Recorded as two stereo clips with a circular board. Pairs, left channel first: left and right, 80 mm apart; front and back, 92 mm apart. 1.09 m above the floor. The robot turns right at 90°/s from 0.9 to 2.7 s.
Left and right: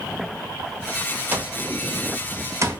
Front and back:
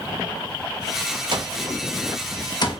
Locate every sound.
1.3 s an alarm clock: 155° right, 0.7 m; by 2.8 s 30° right, 0.7 m